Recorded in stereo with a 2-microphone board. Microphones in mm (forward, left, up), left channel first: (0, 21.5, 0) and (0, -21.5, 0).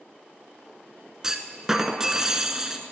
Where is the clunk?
10° right (ahead or behind), 0.9 m.